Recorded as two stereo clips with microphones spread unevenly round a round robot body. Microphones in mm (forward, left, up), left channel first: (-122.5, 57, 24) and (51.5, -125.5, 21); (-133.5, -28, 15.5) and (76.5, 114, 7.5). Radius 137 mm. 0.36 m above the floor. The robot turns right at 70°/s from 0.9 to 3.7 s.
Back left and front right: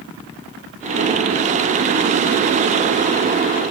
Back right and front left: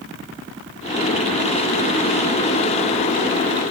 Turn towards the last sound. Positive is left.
No sound to turn to.